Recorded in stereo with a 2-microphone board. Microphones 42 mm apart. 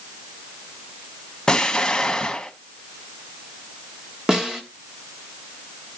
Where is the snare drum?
15° right (ahead or behind), 1.6 m.